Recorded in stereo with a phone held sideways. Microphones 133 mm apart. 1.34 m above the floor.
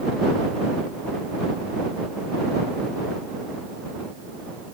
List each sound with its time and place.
Only background noise.